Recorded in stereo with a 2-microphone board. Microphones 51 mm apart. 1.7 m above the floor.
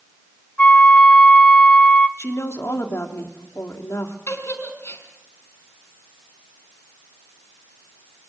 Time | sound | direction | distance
0.6 | a flute | 25° left (ahead or behind) | 1.4 m
2.2 | a woman speaking | 70° left (ahead or behind) | 3.5 m
4.3 | a giggle | 60° left (ahead or behind) | 4.5 m